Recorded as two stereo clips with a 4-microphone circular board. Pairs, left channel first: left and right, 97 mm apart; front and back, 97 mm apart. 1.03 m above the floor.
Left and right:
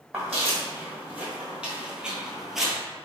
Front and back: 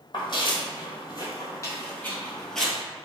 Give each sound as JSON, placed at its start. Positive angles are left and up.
{"t": 0.1, "sound": "footsteps", "azimuth_deg": -15, "distance_m": 1.7}